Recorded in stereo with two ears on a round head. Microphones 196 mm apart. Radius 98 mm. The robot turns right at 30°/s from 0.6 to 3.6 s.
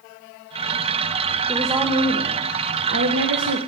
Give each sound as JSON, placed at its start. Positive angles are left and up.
{"t": 1.5, "sound": "a woman speaking", "azimuth_deg": -175, "distance_m": 0.6}